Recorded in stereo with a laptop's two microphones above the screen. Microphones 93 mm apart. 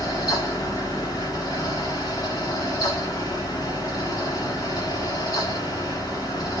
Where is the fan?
45° left (ahead or behind), 0.9 m.